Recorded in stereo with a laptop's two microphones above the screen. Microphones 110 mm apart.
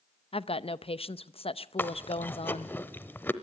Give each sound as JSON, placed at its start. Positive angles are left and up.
{"t": 0.3, "sound": "a woman speaking", "side_deg": 60, "distance_m": 0.7}
{"t": 1.8, "sound": "chewing", "side_deg": 20, "distance_m": 0.9}